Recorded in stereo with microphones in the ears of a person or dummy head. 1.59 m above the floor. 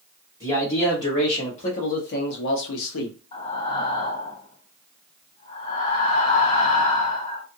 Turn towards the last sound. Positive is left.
turn(degrees=35)  # may be behind; listen again after turning